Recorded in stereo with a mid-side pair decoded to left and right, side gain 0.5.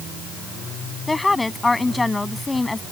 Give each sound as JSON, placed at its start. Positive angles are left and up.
{"t": 1.1, "sound": "a woman speaking", "azimuth_deg": 15}